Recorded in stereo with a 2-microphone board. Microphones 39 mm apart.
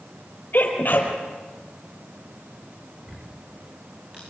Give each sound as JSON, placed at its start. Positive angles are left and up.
{"t": 0.5, "sound": "a sneeze", "side_deg": 50, "distance_m": 4.5}
{"t": 3.0, "sound": "ticking", "side_deg": -20, "distance_m": 8.5}